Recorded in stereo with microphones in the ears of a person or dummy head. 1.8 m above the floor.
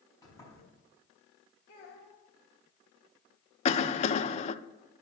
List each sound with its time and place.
0.2 s a sliding door: 20° left (ahead or behind), 4.5 m
1.7 s a child speaking: 55° left (ahead or behind), 1.6 m
3.6 s a cough: 40° left (ahead or behind), 0.5 m